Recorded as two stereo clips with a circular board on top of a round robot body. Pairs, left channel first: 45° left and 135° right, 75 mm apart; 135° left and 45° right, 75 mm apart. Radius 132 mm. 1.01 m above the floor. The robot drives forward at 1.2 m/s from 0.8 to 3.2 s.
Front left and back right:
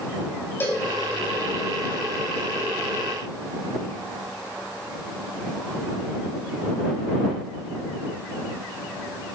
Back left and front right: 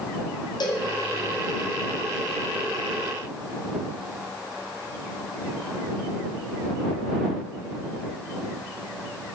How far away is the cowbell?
About 2 m.